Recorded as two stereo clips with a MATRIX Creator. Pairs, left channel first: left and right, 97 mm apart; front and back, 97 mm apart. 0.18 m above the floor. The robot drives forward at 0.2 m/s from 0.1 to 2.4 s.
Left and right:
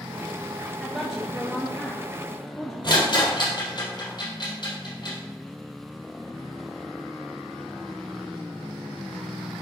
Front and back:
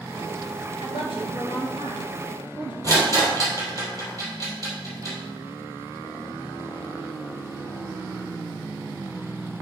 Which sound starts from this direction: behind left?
A rattle, at 2.8 s.